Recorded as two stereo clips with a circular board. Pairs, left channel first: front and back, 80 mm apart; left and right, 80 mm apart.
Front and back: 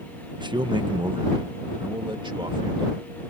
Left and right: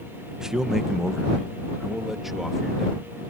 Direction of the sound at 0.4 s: 170° right.